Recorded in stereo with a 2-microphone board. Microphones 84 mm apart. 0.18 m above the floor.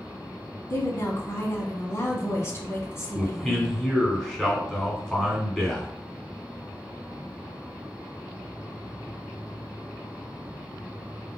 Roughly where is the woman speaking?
Left.